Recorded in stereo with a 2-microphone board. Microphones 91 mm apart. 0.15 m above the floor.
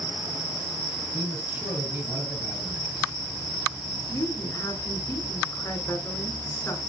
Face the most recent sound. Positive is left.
turn(degrees=35)  # may be behind; listen again after turning